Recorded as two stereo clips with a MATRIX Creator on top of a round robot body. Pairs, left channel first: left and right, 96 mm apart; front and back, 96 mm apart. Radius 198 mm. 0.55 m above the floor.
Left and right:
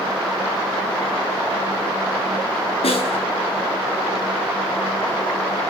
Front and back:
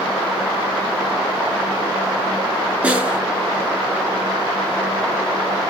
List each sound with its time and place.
2.8 s a snare drum: 105° left, 9 m